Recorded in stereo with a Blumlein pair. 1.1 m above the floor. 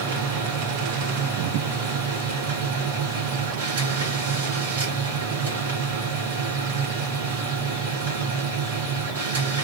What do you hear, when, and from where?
0.0 s a machine running: 65° right, 1.6 m